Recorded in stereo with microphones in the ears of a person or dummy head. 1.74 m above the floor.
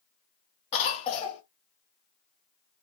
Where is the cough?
30° left (ahead or behind), 0.6 m.